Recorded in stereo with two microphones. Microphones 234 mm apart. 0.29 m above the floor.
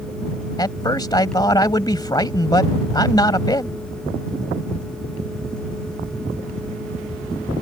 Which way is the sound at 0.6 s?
15° left (ahead or behind).